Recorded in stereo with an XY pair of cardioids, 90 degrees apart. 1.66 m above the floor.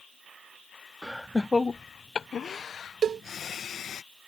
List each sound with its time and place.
1.0 s laughter: 5° right; by 4.0 s 65° left
3.0 s a cowbell: 55° right